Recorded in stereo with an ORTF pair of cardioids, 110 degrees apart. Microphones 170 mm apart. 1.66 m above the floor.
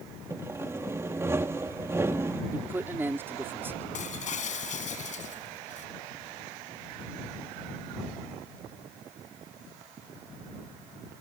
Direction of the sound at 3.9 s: 45° left.